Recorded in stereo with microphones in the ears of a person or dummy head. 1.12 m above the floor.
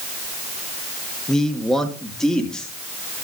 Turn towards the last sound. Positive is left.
turn(degrees=10)  # may be behind; listen again after turning